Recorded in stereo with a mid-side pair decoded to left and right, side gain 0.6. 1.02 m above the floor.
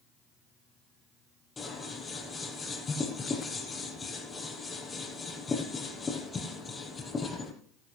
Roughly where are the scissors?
Ahead left.